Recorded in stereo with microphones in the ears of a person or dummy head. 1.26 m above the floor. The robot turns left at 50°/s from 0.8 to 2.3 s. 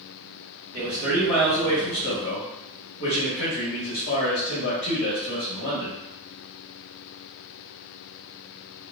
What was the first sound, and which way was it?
A man speaking, 165° right.